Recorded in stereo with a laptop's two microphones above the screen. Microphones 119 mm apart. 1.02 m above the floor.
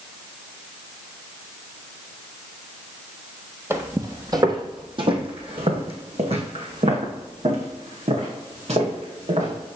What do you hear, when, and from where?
3.7 s footsteps: 20° right (ahead or behind), 1.2 m; by 9.6 s 65° right (ahead or behind), 3.5 m